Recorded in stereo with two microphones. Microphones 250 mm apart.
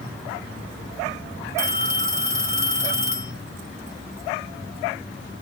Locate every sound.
1.6 s a phone ringing: 10° right (ahead or behind), 1.5 m